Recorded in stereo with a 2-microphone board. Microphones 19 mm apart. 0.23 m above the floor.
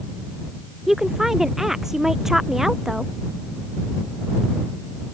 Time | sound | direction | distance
0.9 | a woman speaking | 20° right (ahead or behind) | ?